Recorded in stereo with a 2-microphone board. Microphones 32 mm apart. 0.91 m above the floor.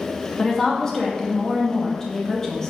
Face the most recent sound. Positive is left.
turn(degrees=20)  # may be behind; listen again after turning